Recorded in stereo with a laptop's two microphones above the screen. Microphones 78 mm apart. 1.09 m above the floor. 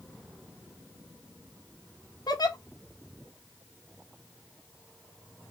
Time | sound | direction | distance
2.3 | a giggle | 55° left (ahead or behind) | 0.9 m